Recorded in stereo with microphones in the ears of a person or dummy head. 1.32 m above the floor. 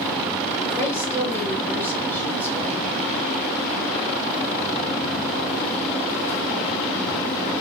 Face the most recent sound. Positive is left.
turn(degrees=10)  # may be behind; listen again after turning